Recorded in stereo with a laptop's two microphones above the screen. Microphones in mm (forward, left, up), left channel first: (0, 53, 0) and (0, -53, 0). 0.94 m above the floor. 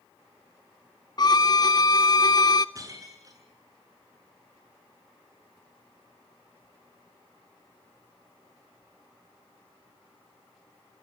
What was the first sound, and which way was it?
A violin, 40° left (ahead or behind).